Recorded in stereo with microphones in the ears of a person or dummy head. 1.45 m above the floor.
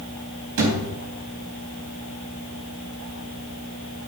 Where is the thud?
65° right (ahead or behind), 4 m.